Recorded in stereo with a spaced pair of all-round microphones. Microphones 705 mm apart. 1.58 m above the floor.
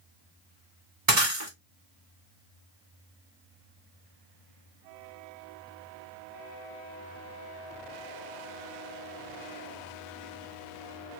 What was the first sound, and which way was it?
Breaking glass, 60° right (ahead or behind).